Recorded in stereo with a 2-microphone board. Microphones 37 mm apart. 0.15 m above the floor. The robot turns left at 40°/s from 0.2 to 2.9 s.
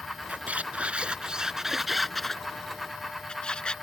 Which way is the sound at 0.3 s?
105° right.